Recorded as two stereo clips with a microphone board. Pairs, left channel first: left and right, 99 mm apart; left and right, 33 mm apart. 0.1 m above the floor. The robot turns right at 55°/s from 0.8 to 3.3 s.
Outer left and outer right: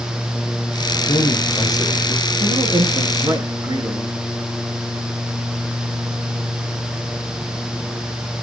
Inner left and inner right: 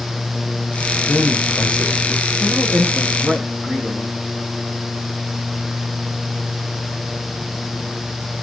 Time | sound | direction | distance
1.1 | a man speaking | 105° left | 5.5 m
2.4 | a man speaking | 85° right | 6.5 m